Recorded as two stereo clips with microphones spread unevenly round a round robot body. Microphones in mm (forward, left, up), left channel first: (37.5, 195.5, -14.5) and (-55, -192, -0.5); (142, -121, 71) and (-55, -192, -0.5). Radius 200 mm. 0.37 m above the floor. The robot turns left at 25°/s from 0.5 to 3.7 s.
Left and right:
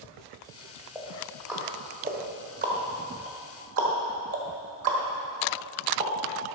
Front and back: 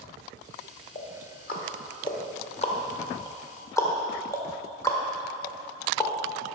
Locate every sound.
0.9 s ticking: 5° right, 1.5 m; by 6.1 s 75° right, 1.5 m